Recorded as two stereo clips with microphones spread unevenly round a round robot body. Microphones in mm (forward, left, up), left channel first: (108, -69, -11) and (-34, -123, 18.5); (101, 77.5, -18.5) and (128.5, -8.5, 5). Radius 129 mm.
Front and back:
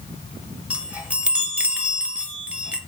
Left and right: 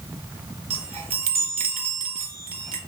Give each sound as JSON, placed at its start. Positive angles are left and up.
{"t": 0.7, "sound": "a chime", "azimuth_deg": -70, "distance_m": 0.6}